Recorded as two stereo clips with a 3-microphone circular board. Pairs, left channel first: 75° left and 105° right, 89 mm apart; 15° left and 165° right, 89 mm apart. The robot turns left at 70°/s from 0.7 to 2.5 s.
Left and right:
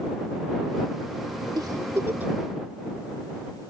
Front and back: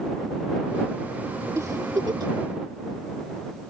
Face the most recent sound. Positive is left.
turn(degrees=175)